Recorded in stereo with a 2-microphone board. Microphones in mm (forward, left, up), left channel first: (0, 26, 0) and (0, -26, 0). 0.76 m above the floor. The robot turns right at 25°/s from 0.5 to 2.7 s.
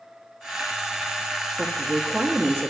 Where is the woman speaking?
25° right (ahead or behind), 0.9 m; by 2.7 s 30° right (ahead or behind), 0.9 m.